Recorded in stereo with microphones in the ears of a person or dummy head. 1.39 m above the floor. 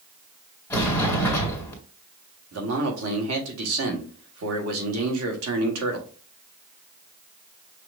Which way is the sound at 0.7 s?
10° left (ahead or behind).